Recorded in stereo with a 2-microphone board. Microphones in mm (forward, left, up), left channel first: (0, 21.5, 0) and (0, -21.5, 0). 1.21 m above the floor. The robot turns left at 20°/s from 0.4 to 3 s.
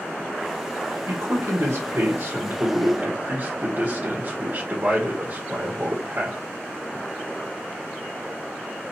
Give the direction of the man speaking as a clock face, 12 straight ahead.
3 o'clock.